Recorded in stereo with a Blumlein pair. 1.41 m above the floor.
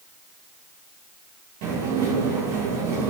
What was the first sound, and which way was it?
Dishes clattering, 50° right.